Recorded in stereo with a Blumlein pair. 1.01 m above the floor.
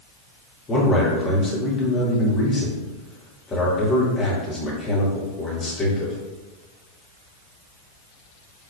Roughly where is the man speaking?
Ahead.